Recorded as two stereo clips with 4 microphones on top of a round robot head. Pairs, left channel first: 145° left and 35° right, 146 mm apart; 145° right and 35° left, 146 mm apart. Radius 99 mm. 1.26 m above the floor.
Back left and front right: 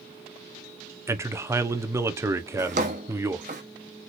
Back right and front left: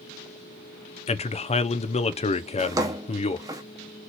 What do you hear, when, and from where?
1.1 s a man speaking: 105° right, 0.9 m
2.6 s a drawer: 20° right, 0.7 m